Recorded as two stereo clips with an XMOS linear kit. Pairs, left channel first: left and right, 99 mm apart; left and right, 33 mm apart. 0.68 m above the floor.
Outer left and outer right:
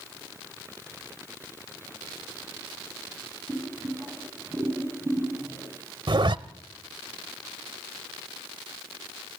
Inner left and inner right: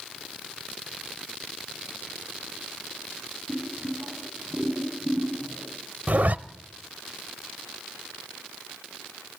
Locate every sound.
3.5 s boiling: 10° right (ahead or behind), 5 m
6.1 s a zipper: 50° right (ahead or behind), 0.6 m